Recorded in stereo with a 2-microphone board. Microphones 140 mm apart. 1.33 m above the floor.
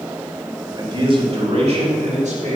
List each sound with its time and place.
0.8 s a man speaking: 30° right (ahead or behind), 2 m; by 2.6 s 55° right (ahead or behind), 3 m